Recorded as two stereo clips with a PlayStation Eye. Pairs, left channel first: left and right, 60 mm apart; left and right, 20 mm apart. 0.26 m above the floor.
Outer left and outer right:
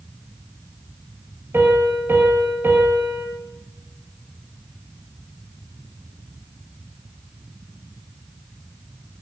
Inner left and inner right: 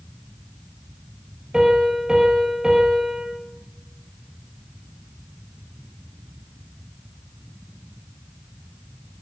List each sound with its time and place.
1.5 s a piano: 45° right (ahead or behind), 7 m